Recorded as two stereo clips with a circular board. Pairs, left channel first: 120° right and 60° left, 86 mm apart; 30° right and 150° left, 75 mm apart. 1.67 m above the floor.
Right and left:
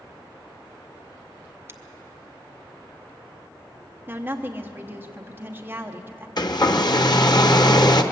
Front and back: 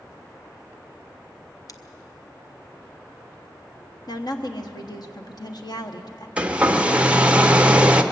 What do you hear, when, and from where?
1.7 s scissors: straight ahead, 0.8 m
4.1 s a woman speaking: 5° right, 1.2 m
6.4 s a hair dryer: 140° right, 0.9 m